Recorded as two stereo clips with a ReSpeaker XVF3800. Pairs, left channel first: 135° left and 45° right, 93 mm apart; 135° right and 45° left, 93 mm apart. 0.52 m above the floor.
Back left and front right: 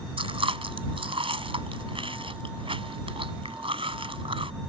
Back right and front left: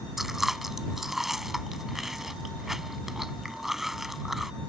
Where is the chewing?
40° right.